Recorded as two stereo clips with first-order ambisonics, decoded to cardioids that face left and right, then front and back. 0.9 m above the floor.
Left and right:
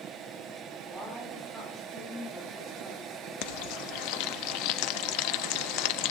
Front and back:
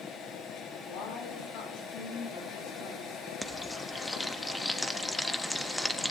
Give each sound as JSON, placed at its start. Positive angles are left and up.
{"t": 0.8, "sound": "a woman speaking", "azimuth_deg": -15, "distance_m": 7.5}
{"t": 3.4, "sound": "frying", "azimuth_deg": 85, "distance_m": 0.8}